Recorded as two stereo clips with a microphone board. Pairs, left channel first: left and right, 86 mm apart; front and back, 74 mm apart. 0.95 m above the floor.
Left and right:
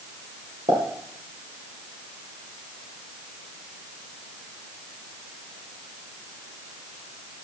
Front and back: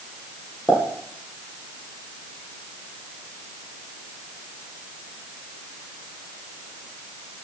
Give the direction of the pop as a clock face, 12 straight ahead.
3 o'clock.